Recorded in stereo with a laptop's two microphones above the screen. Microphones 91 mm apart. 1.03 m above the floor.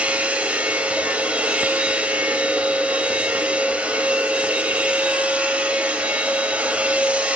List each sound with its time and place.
0.0 s a machine running: 15° right (ahead or behind), 0.9 m